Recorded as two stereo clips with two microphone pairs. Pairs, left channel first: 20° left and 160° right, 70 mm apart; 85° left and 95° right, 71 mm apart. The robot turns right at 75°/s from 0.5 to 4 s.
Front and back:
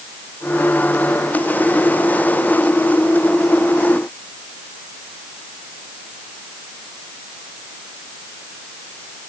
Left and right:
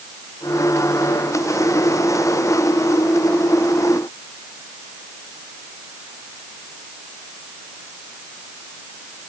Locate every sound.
Only background noise.